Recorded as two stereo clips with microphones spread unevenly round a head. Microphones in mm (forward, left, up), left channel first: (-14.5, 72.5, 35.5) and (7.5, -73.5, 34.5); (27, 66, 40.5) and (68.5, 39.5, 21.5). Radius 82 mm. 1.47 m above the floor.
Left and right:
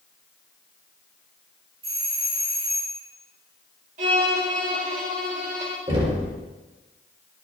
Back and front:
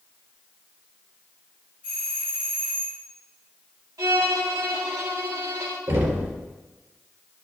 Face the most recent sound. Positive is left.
turn(degrees=-25)